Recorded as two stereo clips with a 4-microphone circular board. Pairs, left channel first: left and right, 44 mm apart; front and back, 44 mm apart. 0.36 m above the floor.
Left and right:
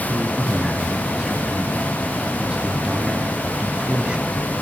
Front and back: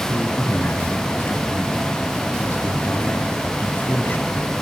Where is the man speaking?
25° right, 2.5 m.